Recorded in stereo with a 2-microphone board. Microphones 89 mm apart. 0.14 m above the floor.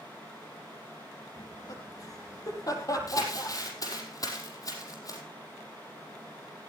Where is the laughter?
45° left (ahead or behind), 4 m; by 3.6 s 40° left (ahead or behind), 5 m.